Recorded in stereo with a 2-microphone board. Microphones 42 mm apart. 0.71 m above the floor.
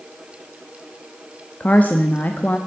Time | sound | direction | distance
1.6 | a woman speaking | 40° left (ahead or behind) | 0.9 m